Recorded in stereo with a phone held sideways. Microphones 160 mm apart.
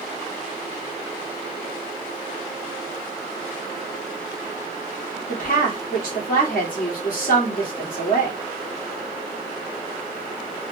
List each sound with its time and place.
5.3 s a woman speaking: 65° left (ahead or behind), 2.5 m